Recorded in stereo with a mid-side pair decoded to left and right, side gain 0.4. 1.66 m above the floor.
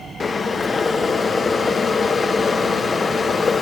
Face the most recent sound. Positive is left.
turn(degrees=40)